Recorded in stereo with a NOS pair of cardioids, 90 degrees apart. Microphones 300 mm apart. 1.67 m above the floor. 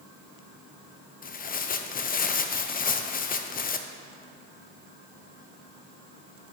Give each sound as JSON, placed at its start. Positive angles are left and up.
{"t": 1.2, "sound": "tearing paper", "azimuth_deg": 30, "distance_m": 0.6}